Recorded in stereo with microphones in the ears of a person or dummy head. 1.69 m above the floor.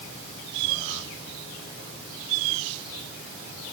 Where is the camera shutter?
No camera shutter in this recording.